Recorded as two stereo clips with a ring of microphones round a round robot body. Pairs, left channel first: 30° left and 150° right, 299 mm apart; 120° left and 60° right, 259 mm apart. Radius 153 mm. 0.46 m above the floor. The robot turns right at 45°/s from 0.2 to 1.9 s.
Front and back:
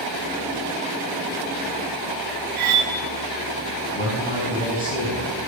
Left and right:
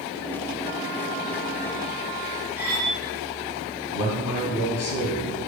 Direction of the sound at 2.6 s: 145° right.